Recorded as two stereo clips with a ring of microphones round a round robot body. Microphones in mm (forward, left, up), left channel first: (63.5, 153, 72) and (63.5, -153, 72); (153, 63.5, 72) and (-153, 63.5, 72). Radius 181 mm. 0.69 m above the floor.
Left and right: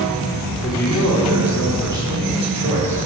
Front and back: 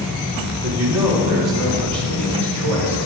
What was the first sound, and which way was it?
A man speaking, 170° left.